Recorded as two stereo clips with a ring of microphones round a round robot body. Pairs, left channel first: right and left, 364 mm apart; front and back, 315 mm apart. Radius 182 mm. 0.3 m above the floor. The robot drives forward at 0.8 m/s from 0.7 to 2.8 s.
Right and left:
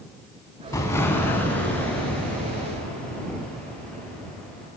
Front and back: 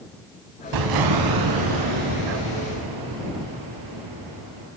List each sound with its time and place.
0.7 s an explosion: 170° right, 0.8 m; by 4.7 s 175° right, 2.5 m